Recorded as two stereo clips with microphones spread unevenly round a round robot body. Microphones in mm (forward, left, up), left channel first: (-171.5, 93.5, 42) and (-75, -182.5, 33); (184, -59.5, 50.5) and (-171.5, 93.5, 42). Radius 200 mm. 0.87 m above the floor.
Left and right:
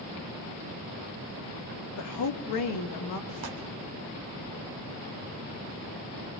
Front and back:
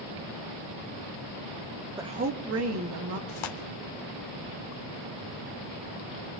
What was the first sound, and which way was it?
A woman speaking, 75° left.